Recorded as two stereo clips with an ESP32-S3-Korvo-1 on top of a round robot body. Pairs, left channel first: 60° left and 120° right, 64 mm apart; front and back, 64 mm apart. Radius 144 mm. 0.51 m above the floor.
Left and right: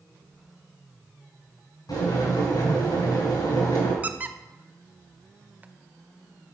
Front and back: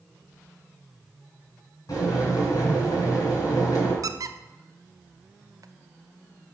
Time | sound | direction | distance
1.9 | boiling | 35° left | 4 m
4.0 | a squeak | 175° left | 0.7 m